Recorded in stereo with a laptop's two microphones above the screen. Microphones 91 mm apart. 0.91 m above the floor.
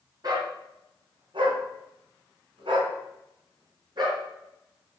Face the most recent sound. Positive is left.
turn(degrees=-50)  # may be behind; listen again after turning